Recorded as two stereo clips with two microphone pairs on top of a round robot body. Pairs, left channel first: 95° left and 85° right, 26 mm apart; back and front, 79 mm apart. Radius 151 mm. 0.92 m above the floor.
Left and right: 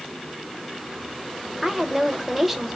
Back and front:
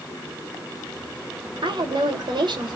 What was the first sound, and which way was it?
A woman speaking, 5° right.